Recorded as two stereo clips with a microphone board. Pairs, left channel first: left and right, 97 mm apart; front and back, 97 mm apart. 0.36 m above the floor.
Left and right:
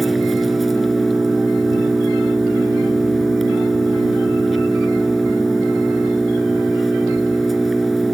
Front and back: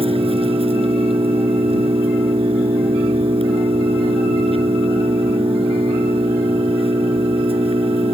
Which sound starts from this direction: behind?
An engine running, at 0.0 s.